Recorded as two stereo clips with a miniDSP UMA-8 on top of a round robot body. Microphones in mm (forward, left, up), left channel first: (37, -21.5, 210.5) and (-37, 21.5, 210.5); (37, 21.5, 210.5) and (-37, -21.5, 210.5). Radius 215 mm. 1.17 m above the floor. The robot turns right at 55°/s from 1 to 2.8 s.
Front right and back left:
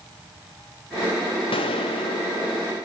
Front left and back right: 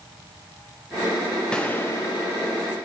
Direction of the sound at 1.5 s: 50° right.